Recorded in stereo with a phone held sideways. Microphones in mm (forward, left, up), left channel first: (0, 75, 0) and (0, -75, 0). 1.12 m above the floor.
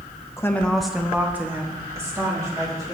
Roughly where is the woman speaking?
Centre.